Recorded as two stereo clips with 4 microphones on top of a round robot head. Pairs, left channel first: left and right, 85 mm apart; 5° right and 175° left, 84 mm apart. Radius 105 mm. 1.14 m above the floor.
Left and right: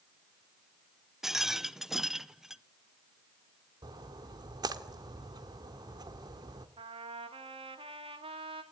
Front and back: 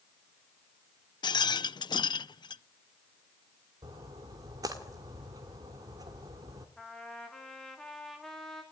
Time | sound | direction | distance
1.2 | a rattle | 5° right | 0.6 m
3.8 | a splash | 130° right | 1.6 m
6.8 | a trumpet | 90° right | 2.5 m